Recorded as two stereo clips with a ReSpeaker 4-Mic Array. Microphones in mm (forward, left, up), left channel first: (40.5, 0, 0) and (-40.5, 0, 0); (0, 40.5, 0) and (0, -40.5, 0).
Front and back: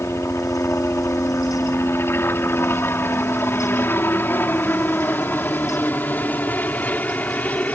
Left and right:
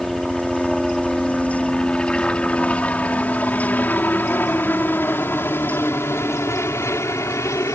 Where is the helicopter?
Straight ahead; by 7.8 s 65° left.